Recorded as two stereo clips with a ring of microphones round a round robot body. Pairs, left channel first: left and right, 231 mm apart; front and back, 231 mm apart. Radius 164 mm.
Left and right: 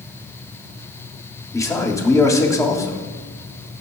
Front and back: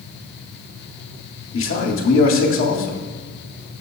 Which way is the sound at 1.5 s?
15° left.